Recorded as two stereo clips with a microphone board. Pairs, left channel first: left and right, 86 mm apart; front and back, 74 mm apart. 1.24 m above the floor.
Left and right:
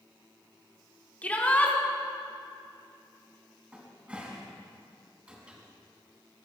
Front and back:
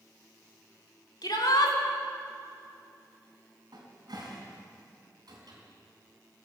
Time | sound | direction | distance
1.2 | a shout | 15° left | 2.5 m
3.7 | a cupboard door | 165° right | 3.5 m